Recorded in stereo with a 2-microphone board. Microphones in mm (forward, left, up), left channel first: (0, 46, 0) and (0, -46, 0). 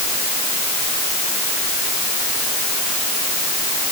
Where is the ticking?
I don't hear ticking.